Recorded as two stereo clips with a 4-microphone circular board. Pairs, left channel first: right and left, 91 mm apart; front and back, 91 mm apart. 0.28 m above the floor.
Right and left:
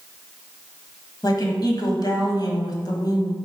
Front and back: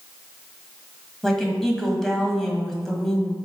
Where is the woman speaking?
85° right, 1.6 m.